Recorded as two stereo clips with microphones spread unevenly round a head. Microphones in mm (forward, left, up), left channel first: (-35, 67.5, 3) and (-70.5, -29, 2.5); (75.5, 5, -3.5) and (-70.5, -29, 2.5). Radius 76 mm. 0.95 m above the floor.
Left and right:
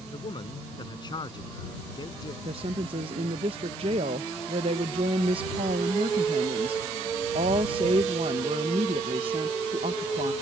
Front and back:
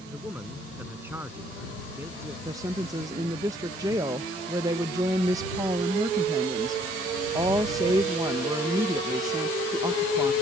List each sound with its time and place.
0.1 s a man speaking: 115° left; by 2.4 s 120° left
2.5 s a woman speaking: 100° right